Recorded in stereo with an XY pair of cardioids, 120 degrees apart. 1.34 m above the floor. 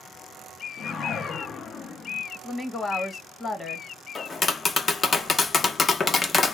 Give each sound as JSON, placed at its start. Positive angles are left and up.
{"t": 0.8, "sound": "a whoosh", "azimuth_deg": 50, "distance_m": 0.6}
{"t": 2.4, "sound": "a woman speaking", "azimuth_deg": 25, "distance_m": 1.2}
{"t": 4.2, "sound": "tapping", "azimuth_deg": 35, "distance_m": 0.5}